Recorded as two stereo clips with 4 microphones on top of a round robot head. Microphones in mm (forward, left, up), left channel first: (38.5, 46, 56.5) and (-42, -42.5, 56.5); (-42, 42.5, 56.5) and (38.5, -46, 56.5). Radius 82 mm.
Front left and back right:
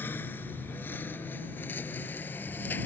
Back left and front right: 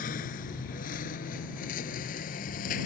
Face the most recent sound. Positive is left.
turn(degrees=125)